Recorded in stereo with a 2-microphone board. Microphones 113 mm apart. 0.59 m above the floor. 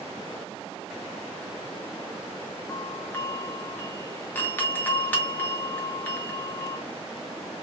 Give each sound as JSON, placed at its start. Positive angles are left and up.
{"t": 2.7, "sound": "a doorbell", "side_deg": 15, "distance_m": 1.0}